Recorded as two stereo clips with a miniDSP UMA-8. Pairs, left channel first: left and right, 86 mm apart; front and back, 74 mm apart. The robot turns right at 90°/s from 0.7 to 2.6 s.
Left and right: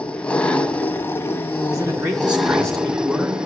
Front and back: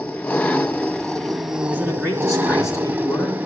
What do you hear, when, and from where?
0.0 s an engine running: 35° left, 0.7 m; by 3.5 s 155° right, 0.7 m
1.7 s a man speaking: 70° right, 2.5 m; by 3.4 s 15° left, 2.5 m